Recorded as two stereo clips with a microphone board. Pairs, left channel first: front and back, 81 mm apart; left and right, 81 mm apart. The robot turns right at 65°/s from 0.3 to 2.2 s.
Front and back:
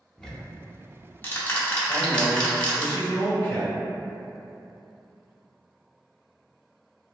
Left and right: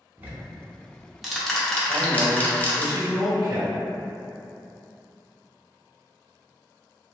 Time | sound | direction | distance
0.2 | ticking | 65° right | 0.6 m
1.9 | a man speaking | 90° right | 1.6 m